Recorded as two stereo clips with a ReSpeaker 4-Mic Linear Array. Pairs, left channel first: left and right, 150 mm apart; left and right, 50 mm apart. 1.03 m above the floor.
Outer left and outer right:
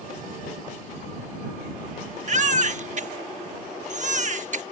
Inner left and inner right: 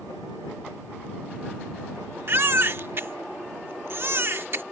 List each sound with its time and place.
2.3 s a baby crying: 55° right (ahead or behind)